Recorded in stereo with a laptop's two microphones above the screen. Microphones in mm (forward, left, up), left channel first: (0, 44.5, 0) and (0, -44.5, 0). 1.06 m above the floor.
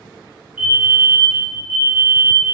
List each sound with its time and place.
0.6 s a fire alarm: 10° right (ahead or behind), 1.0 m